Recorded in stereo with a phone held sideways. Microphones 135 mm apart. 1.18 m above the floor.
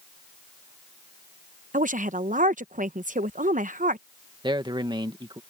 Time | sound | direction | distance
1.7 | a woman speaking | 75° right (ahead or behind) | ?
4.4 | a man speaking | 35° right (ahead or behind) | ?